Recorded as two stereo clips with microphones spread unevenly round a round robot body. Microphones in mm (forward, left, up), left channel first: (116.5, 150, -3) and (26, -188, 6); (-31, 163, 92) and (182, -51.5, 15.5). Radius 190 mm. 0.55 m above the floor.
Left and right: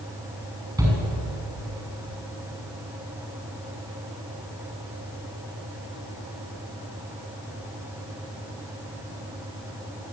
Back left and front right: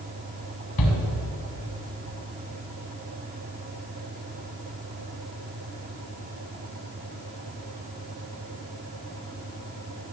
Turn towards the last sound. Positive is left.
turn(degrees=175)